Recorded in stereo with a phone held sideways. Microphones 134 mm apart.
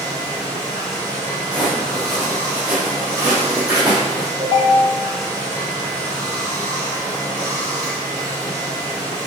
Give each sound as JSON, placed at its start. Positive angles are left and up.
{"t": 0.0, "sound": "running water", "side_deg": 10, "distance_m": 1.6}
{"t": 1.5, "sound": "footsteps", "side_deg": 10, "distance_m": 1.5}
{"t": 4.4, "sound": "a ringtone", "side_deg": -45, "distance_m": 1.8}